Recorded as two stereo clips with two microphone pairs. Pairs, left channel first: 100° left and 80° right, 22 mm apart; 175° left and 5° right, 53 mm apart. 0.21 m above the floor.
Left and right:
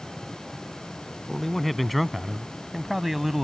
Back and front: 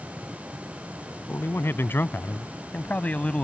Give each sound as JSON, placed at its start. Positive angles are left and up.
{"t": 1.3, "sound": "a man speaking", "azimuth_deg": 180}